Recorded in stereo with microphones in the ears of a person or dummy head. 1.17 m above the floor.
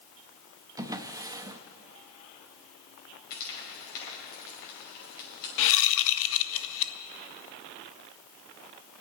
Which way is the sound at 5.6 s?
70° left (ahead or behind).